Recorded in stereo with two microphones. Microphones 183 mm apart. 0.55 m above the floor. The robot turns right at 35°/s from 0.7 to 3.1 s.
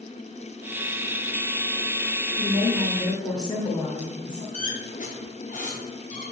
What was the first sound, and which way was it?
A woman speaking, 20° left (ahead or behind).